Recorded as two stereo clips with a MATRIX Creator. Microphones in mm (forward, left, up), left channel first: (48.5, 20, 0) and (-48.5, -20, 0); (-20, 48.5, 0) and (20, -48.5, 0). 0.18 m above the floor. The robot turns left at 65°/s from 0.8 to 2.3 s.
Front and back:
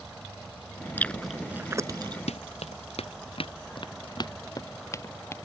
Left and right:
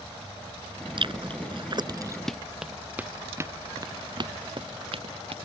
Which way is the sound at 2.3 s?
25° left.